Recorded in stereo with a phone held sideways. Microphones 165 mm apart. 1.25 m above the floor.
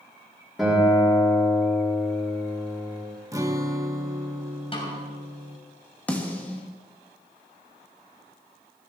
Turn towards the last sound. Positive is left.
turn(degrees=10)  # may be behind; listen again after turning